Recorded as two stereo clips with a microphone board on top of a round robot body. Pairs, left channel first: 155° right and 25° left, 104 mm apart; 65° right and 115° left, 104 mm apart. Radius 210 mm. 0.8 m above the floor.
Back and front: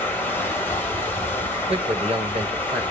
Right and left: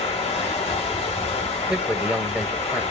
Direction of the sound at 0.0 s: 85° right.